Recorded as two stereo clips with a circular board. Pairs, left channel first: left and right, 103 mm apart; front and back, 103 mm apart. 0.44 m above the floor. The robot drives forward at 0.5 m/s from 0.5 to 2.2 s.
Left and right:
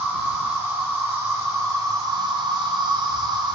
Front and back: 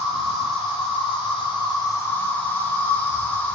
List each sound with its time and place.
0.0 s an insect: 20° right, 1.1 m; by 3.6 s 65° right, 0.5 m